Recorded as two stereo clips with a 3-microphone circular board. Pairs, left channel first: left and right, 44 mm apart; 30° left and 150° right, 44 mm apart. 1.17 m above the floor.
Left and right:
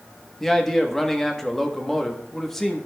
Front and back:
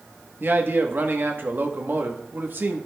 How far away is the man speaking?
About 1.0 m.